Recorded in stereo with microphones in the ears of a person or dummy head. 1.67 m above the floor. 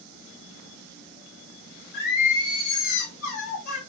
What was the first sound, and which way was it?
Singing, 55° left (ahead or behind).